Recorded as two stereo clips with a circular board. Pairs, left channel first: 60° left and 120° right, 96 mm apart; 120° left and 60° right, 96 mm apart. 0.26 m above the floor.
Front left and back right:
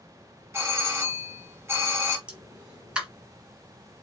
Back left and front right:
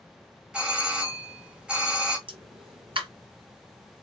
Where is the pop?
40° right, 1.7 m.